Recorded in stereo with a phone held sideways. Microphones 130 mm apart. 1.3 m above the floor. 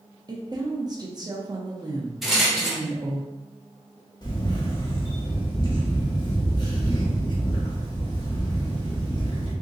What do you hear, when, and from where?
0.3 s a woman speaking: 30° right (ahead or behind), 0.9 m
2.2 s a rattle: centre (ahead or behind), 0.9 m
4.2 s a camera shutter: 35° left (ahead or behind), 1.0 m